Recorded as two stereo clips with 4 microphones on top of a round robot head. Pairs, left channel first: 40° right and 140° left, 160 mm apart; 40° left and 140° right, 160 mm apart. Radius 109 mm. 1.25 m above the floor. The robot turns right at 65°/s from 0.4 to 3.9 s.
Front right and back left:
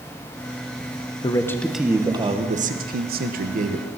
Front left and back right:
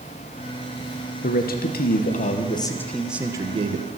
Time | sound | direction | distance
1.2 | a man speaking | 15° left | 1.3 m